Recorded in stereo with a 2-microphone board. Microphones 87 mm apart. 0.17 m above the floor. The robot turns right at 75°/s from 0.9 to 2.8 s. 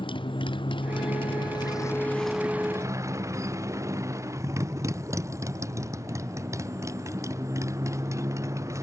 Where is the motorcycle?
75° left; by 8.8 s 145° right.